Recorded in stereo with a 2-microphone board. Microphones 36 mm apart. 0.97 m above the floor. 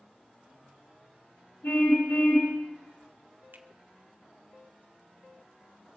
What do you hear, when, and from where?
1.6 s a car horn: 80° left, 7.5 m
3.5 s a finger snap: 60° right (ahead or behind), 1.1 m